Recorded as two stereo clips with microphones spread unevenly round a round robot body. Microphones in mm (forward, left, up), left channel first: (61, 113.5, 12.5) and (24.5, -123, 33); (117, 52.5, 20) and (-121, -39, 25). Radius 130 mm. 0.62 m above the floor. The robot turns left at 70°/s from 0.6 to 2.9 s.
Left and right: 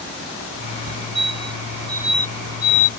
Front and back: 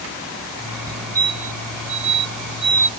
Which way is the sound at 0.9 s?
80° right.